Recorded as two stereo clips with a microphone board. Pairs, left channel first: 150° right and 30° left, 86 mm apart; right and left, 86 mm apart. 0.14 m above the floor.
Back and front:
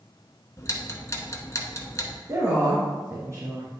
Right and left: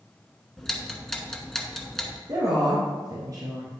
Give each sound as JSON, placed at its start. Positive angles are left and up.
{"t": 0.6, "sound": "ticking", "azimuth_deg": -170, "distance_m": 1.0}
{"t": 2.3, "sound": "a woman speaking", "azimuth_deg": 70, "distance_m": 2.0}